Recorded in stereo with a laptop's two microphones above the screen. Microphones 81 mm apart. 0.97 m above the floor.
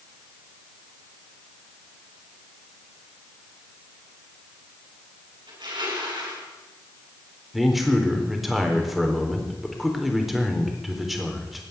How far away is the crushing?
About 7.5 m.